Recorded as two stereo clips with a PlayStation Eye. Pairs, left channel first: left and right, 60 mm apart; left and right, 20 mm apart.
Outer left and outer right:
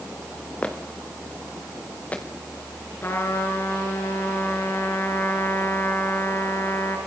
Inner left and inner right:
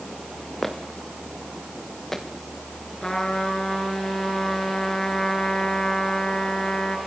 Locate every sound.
0.6 s footsteps: 20° left (ahead or behind), 3.5 m; by 2.2 s 25° left (ahead or behind), 4.5 m
3.0 s a trumpet: 40° left (ahead or behind), 6 m